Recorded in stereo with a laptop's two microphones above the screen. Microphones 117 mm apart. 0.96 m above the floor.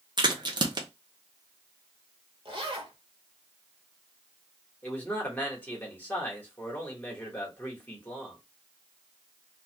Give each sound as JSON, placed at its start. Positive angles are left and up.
{"t": 0.2, "sound": "a crack", "side_deg": -45, "distance_m": 0.8}
{"t": 2.5, "sound": "a zipper", "side_deg": -50, "distance_m": 1.0}
{"t": 4.8, "sound": "a man speaking", "side_deg": 15, "distance_m": 1.4}